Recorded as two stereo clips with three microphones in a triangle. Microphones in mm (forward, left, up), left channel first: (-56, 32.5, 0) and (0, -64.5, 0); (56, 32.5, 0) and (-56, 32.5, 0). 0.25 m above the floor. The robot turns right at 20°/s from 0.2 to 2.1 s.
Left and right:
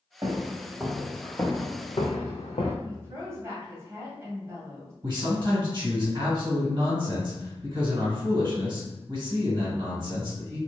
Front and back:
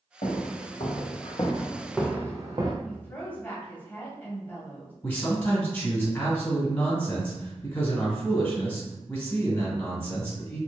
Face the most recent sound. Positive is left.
turn(degrees=-50)